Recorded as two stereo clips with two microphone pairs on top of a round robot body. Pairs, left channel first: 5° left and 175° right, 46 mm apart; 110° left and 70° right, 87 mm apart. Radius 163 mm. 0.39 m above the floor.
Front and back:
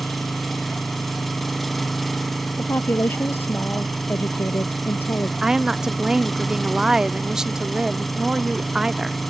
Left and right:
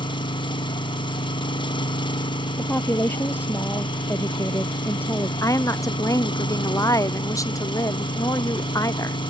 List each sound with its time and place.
0.0 s an engine running: 90° left
2.6 s a woman speaking: 45° left
5.4 s a woman speaking: 105° left